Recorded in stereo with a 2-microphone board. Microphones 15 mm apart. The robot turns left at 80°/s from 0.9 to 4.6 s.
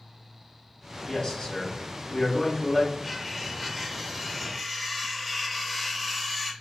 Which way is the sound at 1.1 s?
140° left.